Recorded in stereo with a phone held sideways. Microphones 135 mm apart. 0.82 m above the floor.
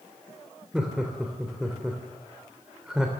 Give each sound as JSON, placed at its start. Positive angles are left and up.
{"t": 0.7, "sound": "laughter", "side_deg": -5, "distance_m": 3.0}